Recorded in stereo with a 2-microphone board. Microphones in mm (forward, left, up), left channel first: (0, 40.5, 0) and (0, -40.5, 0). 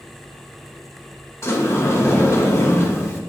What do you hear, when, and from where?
1.4 s a sliding door: 30° left (ahead or behind), 1.4 m